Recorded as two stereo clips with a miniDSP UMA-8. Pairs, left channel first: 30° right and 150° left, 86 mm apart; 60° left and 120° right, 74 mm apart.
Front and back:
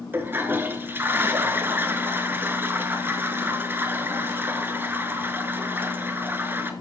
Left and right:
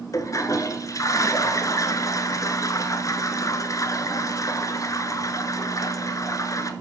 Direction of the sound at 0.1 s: 90° left.